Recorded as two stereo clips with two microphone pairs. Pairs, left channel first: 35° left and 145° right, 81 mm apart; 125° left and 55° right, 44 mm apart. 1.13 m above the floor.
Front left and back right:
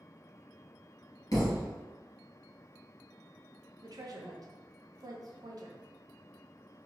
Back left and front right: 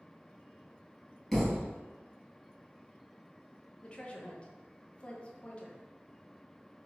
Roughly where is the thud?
Ahead left.